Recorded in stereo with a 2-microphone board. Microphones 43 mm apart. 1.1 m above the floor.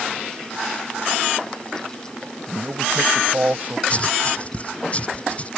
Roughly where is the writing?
Left.